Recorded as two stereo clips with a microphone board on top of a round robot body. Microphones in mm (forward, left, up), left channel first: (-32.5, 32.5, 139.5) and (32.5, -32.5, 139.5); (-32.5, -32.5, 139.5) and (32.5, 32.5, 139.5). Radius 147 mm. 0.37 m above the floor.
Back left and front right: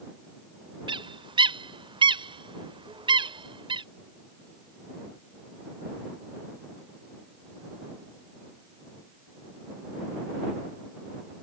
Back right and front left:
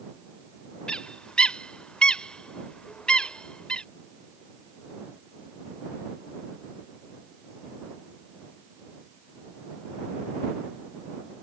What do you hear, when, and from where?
0.9 s a bird: 55° right